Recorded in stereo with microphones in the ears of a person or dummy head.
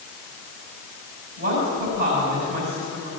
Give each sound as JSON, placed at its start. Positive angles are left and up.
{"t": 1.4, "sound": "a woman speaking", "side_deg": -45, "distance_m": 5.0}